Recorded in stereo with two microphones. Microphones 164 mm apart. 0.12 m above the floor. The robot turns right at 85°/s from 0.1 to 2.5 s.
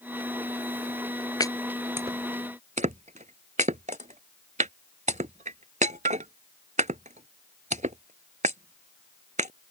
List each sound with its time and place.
1.4 s chopping: 25° left (ahead or behind); by 9.5 s 50° right (ahead or behind)